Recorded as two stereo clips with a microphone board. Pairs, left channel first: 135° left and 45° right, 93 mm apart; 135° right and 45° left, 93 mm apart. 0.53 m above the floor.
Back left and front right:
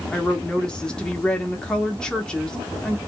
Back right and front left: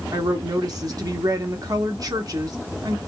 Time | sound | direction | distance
0.1 | a woman speaking | 60° left | 0.8 m